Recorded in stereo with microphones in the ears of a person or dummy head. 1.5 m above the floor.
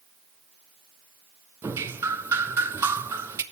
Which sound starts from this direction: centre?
Dripping, at 1.6 s.